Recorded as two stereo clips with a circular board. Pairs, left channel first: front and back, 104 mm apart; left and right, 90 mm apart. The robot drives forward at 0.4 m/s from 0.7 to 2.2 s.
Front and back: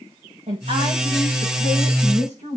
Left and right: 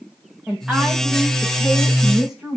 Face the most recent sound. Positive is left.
turn(degrees=-175)